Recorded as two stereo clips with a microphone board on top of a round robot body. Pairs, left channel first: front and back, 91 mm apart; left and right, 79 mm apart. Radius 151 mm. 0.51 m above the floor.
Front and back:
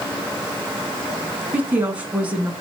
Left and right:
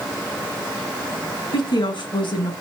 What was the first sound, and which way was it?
A woman speaking, 105° left.